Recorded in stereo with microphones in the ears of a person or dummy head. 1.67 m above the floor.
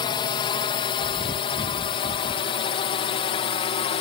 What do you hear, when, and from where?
0.0 s a drone: 25° left (ahead or behind); by 4.0 s 30° left (ahead or behind)
1.0 s chewing: 25° left (ahead or behind)